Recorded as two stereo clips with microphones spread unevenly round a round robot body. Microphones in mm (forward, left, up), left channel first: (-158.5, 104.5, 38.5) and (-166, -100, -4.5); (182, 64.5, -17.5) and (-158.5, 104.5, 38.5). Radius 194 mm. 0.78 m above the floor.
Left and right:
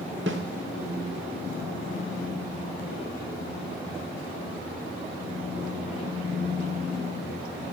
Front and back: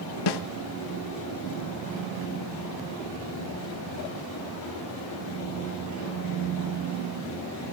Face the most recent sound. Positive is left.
turn(degrees=-40)